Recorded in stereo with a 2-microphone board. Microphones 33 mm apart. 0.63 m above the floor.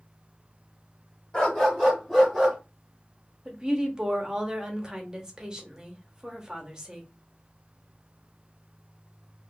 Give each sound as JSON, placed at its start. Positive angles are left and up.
{"t": 1.3, "sound": "a dog barking", "side_deg": 25, "distance_m": 1.0}
{"t": 3.5, "sound": "a woman speaking", "side_deg": -25, "distance_m": 0.7}